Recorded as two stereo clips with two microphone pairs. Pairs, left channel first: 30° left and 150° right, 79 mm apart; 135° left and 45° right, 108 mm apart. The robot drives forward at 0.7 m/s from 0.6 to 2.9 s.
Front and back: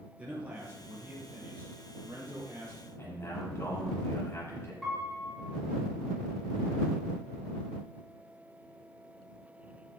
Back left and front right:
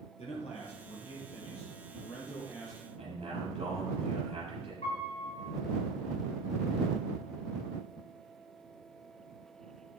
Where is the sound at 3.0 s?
25° right, 7 m.